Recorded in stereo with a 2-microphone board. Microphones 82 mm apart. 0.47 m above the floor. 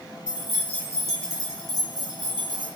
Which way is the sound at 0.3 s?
10° right (ahead or behind).